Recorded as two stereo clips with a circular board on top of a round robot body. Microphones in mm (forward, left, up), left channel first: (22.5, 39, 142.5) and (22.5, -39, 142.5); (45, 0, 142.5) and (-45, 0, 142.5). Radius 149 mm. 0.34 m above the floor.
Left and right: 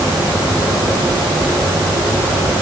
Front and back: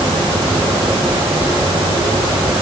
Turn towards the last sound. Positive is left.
No sound to turn to.